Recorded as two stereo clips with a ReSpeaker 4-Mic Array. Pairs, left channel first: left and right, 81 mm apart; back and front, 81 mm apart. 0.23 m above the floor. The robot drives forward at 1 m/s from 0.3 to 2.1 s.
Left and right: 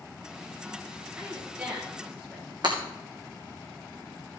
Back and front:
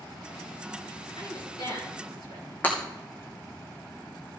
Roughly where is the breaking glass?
Right.